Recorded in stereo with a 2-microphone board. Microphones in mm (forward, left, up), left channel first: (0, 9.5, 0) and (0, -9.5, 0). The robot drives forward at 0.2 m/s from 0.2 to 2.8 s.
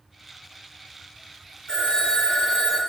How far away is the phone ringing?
About 0.7 m.